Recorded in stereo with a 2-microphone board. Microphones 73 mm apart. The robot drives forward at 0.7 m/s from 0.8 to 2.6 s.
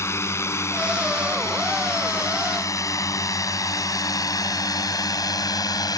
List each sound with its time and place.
0.0 s a drone: 40° left (ahead or behind); by 6.0 s 60° left (ahead or behind)